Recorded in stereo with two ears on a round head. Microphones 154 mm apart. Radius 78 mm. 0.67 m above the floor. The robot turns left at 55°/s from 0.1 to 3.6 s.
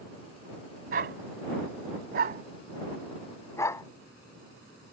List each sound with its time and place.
0.9 s a dog barking: 50° right (ahead or behind); by 3.9 s 20° left (ahead or behind)